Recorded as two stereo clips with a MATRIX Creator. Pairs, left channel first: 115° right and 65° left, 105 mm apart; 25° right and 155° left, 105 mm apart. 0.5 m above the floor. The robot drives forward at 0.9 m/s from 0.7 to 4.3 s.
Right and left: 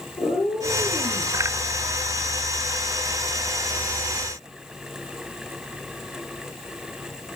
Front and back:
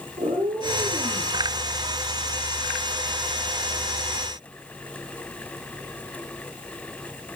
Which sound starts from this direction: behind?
A cat meowing, at 0.2 s.